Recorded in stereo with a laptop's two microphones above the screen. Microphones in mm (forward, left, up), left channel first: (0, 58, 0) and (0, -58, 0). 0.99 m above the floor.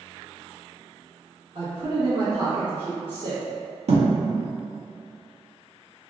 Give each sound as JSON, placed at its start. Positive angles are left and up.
{"t": 1.6, "sound": "a man speaking", "side_deg": -55, "distance_m": 1.1}
{"t": 3.9, "sound": "a thud", "side_deg": -70, "distance_m": 0.6}